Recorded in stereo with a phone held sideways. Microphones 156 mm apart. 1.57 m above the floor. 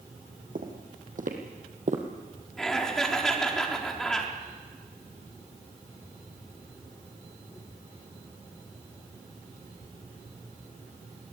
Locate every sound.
0.6 s footsteps: 65° right (ahead or behind), 3.5 m; by 2.0 s 50° right (ahead or behind), 2.5 m
2.6 s laughter: 5° left (ahead or behind), 4 m